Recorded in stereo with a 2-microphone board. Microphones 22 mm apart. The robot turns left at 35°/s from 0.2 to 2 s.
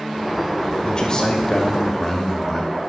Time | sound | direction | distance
0.8 | a man speaking | 55° left | 2.0 m